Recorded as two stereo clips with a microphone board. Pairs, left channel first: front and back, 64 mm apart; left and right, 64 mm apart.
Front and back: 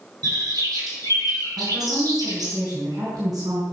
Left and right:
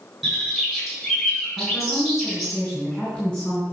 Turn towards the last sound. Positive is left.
turn(degrees=170)